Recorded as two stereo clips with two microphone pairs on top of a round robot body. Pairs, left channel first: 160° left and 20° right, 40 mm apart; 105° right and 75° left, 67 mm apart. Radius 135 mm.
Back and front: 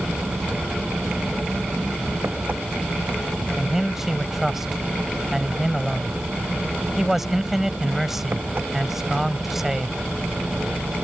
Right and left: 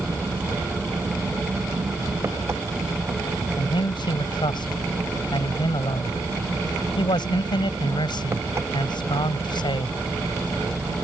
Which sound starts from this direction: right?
A man speaking, at 3.6 s.